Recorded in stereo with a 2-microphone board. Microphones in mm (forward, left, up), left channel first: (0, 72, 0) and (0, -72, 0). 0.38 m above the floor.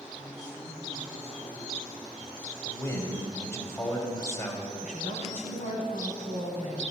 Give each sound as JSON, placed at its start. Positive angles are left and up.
{"t": 0.2, "sound": "a man speaking", "side_deg": 25, "distance_m": 3.0}
{"t": 2.6, "sound": "a man speaking", "side_deg": 20, "distance_m": 1.6}
{"t": 4.8, "sound": "a woman speaking", "side_deg": 65, "distance_m": 2.0}